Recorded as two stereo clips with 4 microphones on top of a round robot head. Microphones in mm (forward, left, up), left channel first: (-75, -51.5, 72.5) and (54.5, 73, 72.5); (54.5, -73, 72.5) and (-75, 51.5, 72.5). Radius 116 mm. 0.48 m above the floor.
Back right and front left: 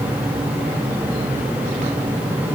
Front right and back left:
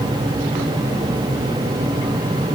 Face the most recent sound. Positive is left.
No sound to turn to.